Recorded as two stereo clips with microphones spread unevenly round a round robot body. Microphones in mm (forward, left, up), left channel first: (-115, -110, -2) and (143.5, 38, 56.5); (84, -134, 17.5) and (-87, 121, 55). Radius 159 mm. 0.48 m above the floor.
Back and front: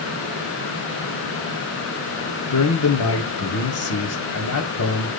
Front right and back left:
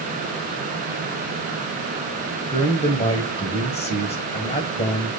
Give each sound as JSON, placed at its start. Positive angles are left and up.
{"t": 2.5, "sound": "a man speaking", "azimuth_deg": -125, "distance_m": 2.5}